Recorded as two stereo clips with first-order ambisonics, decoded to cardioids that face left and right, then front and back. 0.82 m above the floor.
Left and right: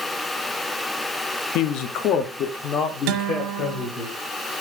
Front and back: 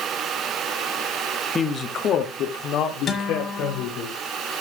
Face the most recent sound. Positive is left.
turn(degrees=-65)